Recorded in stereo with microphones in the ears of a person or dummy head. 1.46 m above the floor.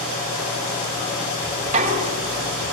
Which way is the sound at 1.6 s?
35° right (ahead or behind).